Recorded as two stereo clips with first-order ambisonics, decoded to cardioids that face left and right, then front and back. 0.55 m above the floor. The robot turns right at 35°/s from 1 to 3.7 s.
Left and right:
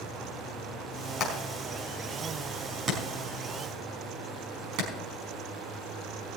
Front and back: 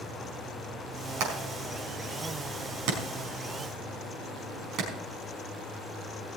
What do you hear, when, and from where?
1.2 s hammering: 150° left, 4.5 m; by 4.9 s 125° right, 4.5 m